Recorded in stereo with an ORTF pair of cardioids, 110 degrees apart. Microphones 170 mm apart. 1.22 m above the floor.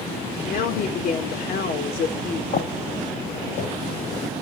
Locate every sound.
0.5 s a woman speaking: 55° left, 4 m
2.5 s footsteps: 55° left, 4.5 m